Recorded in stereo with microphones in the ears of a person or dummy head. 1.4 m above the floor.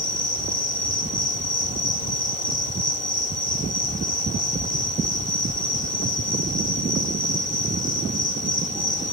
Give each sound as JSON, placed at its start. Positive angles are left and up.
{"t": 0.0, "sound": "an insect", "side_deg": 40, "distance_m": 1.6}